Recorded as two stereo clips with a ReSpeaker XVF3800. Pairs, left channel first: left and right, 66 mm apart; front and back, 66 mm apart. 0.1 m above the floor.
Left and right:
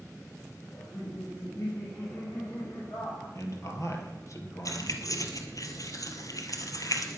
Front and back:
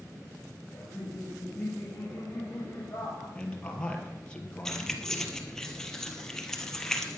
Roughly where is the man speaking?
Left.